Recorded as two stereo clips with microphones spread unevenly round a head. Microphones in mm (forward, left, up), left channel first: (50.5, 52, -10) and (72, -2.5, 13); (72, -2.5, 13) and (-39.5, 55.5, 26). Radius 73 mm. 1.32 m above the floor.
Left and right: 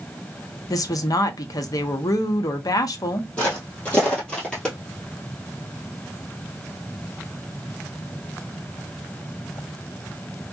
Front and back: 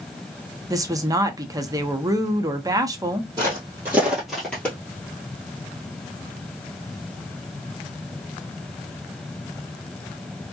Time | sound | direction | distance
0.7 | a woman speaking | 90° left | 0.6 m
3.4 | footsteps | 155° right | 1.8 m